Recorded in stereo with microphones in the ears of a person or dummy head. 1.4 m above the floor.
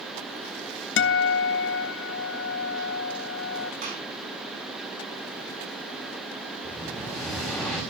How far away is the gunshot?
About 3.5 m.